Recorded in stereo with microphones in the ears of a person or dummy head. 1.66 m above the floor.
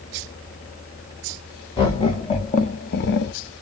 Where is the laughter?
25° left (ahead or behind), 1.4 m; by 3.3 s 60° left (ahead or behind), 0.5 m.